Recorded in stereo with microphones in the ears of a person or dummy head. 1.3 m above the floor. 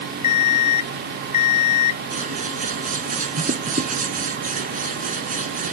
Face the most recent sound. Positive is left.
turn(degrees=-40)  # may be behind; listen again after turning